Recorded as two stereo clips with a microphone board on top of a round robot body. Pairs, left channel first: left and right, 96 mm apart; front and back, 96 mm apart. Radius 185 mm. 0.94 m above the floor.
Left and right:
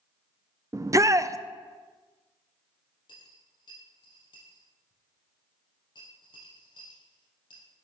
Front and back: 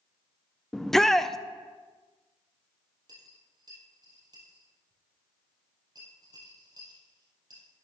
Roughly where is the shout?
Right.